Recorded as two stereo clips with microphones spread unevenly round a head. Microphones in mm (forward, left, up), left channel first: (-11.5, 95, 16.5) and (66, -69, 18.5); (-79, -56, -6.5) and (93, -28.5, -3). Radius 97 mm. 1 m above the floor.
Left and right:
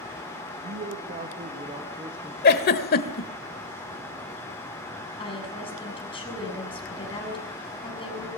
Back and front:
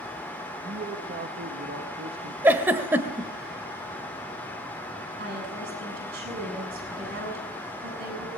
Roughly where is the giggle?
Left.